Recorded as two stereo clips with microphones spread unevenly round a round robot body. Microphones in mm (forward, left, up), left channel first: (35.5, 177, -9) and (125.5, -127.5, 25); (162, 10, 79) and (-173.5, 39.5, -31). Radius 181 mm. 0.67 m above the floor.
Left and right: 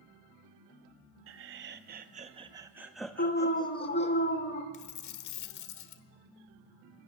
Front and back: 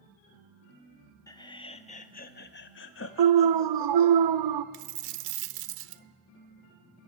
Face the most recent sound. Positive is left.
turn(degrees=155)